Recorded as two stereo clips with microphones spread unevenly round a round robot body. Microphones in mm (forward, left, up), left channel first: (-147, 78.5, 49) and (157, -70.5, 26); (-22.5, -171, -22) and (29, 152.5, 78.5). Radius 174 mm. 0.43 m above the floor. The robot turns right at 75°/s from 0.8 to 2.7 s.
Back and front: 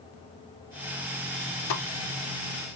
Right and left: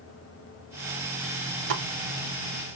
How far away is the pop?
About 0.6 m.